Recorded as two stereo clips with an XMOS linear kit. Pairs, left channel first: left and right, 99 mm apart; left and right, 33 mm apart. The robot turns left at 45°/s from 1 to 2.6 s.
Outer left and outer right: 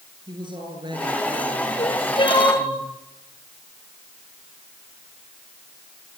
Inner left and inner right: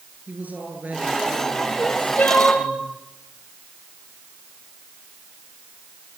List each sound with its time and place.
0.3 s a woman speaking: 50° right, 8 m; by 2.8 s 120° right, 8 m
1.8 s crying: 75° left, 6.5 m; by 2.7 s 40° left, 6.5 m